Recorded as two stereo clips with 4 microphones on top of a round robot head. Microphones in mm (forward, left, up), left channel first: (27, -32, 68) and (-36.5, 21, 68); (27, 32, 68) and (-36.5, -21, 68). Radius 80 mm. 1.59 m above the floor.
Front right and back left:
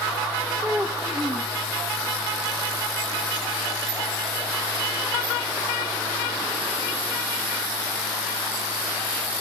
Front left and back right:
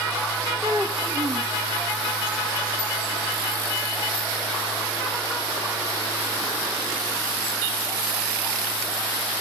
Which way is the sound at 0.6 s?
170° right.